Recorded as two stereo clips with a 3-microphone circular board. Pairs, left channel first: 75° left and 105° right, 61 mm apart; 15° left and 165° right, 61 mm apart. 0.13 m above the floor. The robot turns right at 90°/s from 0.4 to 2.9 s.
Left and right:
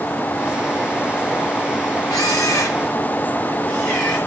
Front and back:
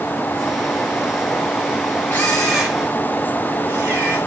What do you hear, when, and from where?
2.1 s a camera shutter: 70° left, 7 m; by 4.2 s 140° left, 7 m